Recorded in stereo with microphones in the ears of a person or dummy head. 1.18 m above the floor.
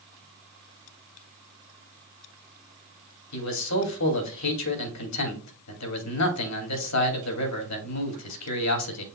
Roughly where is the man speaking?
Left.